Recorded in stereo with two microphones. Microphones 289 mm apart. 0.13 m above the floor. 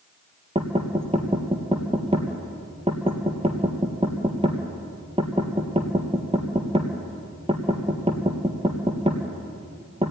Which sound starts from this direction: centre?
Knocking, at 0.6 s.